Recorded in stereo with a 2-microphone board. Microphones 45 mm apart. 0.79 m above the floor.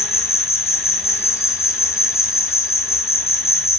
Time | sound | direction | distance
0.0 | an insect | 80° left | 2.5 m